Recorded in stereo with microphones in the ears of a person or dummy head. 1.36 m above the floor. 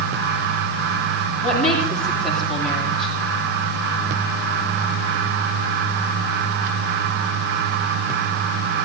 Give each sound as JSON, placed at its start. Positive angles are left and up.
{"t": 1.4, "sound": "a woman speaking", "side_deg": 5, "distance_m": 7.5}